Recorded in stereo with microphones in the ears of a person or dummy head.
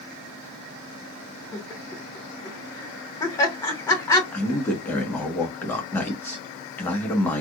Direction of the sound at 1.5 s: 10° left (ahead or behind).